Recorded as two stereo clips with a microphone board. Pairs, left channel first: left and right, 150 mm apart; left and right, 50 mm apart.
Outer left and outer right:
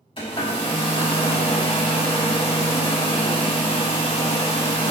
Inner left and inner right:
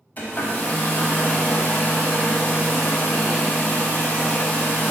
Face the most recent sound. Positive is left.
turn(degrees=35)  # may be behind; listen again after turning